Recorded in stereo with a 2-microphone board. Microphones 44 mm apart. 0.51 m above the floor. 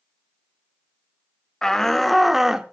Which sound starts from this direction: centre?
A shout, at 1.6 s.